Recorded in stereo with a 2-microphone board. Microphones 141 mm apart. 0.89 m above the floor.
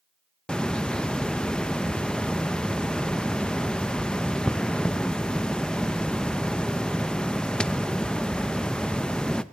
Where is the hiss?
5° left (ahead or behind), 0.8 m.